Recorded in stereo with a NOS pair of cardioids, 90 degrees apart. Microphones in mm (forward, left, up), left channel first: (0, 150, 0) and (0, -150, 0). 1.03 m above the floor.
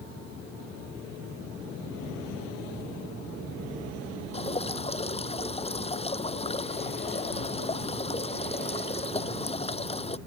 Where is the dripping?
20° left.